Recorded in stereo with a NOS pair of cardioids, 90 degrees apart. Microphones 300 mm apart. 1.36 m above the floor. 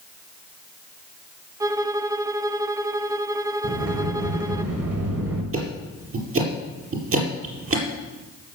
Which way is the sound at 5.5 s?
45° right.